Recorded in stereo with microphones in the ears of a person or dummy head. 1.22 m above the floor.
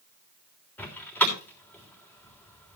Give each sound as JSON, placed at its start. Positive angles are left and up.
{"t": 0.8, "sound": "a door slam", "side_deg": 10, "distance_m": 3.0}